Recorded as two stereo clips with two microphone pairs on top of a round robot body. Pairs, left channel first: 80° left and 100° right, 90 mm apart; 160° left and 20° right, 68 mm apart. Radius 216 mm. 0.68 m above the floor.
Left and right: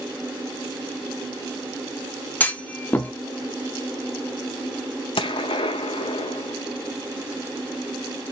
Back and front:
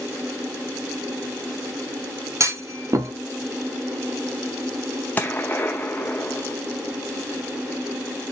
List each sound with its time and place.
2.4 s a clunk: 15° left, 1.1 m
5.2 s a gunshot: 95° left, 0.5 m